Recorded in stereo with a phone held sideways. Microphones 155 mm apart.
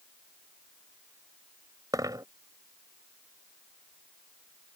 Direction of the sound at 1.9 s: 25° right (ahead or behind).